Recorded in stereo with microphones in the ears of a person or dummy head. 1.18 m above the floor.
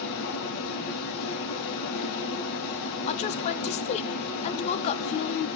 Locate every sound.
0.0 s running water: 65° left (ahead or behind), 3.5 m
3.1 s a woman speaking: 35° left (ahead or behind), 0.6 m